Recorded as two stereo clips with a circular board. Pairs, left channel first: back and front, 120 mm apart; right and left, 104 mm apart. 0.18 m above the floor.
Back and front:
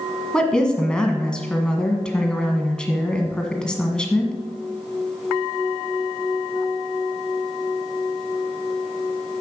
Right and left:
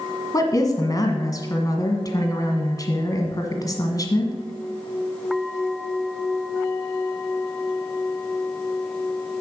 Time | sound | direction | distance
0.3 | a woman speaking | 100° right | 1.5 m